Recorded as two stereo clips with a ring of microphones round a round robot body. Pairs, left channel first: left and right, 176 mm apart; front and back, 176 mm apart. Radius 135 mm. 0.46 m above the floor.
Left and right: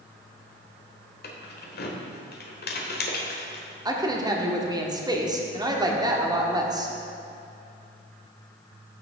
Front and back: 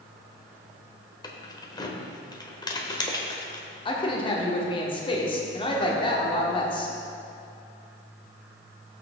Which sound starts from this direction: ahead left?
Keys jangling, at 1.2 s.